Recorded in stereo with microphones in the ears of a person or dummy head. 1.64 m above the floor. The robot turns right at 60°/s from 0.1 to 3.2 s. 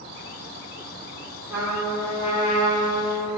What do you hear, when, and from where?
1.5 s a trumpet: 15° right, 3 m; by 3.4 s 85° left, 3 m